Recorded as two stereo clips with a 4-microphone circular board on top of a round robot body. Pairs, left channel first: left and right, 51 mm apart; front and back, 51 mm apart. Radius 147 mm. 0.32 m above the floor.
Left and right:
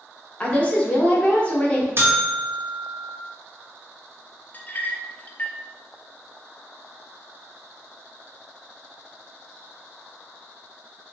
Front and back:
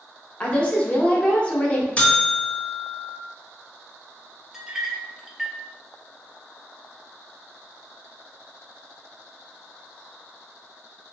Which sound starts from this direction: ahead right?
A buzzer, at 2.0 s.